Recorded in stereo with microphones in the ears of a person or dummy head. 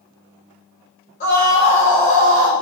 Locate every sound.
1.2 s a scream: 40° left (ahead or behind), 3.5 m; by 2.5 s 30° left (ahead or behind), 3 m